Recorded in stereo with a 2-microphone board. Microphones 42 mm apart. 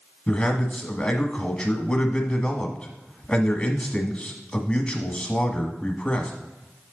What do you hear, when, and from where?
0.3 s a man speaking: 25° left (ahead or behind), 1.1 m